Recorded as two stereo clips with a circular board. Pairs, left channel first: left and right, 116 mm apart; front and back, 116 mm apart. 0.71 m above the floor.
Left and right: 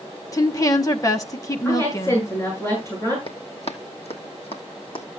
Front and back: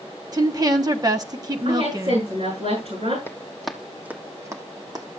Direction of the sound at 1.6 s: 155° left.